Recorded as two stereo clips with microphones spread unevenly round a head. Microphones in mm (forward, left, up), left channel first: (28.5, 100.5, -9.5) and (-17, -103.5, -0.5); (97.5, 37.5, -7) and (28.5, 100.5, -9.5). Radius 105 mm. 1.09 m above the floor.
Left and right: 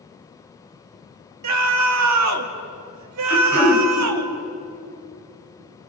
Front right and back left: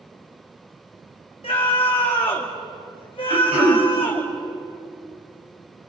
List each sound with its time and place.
1.4 s a scream: 105° right, 2.5 m
3.3 s throat clearing: 155° left, 3.5 m